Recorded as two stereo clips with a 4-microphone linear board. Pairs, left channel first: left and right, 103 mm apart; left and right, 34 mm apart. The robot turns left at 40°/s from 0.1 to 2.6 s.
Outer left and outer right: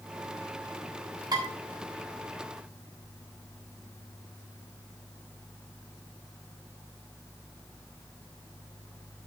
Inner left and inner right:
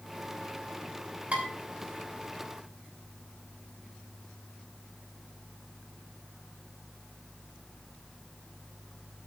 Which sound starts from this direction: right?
Dishes clattering, at 1.3 s.